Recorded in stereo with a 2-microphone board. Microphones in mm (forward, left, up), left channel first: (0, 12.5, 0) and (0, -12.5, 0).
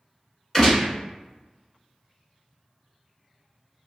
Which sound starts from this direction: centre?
A gunshot, at 0.5 s.